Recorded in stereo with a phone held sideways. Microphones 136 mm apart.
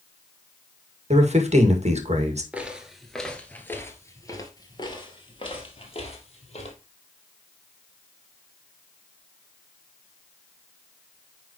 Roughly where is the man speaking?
Right.